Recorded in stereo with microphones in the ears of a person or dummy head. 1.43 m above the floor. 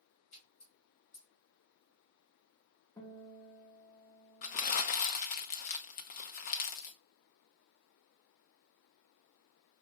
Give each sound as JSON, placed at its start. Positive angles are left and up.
{"t": 0.3, "sound": "a splash", "side_deg": 35, "distance_m": 2.5}
{"t": 3.0, "sound": "a guitar", "side_deg": 15, "distance_m": 1.6}
{"t": 4.4, "sound": "crumpling", "side_deg": 35, "distance_m": 0.6}